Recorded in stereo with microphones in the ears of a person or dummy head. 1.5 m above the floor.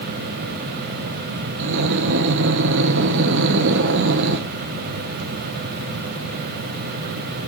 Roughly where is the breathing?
Right.